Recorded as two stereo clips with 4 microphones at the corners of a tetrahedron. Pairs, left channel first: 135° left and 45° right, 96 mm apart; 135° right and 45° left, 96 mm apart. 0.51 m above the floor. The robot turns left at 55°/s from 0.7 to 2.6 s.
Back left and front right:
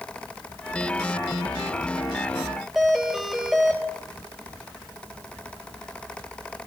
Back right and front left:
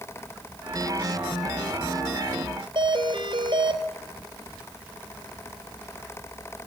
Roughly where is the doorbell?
Ahead left.